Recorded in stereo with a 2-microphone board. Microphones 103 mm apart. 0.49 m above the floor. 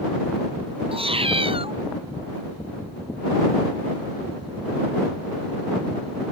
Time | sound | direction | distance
0.9 | a cat meowing | 65° right (ahead or behind) | ?